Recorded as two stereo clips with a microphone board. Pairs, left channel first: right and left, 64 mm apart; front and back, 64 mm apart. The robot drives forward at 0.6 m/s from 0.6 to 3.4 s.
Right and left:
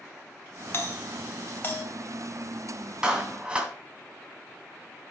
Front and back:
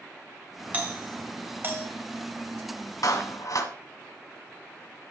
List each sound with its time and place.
0.7 s a doorbell: 125° right, 2.5 m; by 1.9 s 140° right, 2.5 m
3.0 s a clap: 15° left, 2 m; by 3.7 s 20° left, 1.9 m